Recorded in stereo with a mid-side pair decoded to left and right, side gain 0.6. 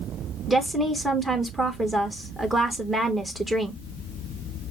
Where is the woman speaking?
15° right, 1.2 m.